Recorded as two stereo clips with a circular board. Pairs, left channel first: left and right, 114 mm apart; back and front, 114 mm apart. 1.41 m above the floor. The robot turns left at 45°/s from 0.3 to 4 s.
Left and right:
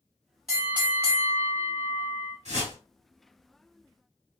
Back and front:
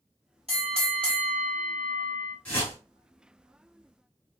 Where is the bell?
5° right, 2.5 m; by 2.4 s 90° right, 2.5 m.